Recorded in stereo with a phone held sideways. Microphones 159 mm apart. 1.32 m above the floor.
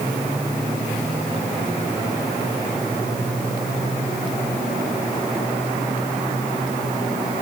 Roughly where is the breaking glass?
I don't hear breaking glass.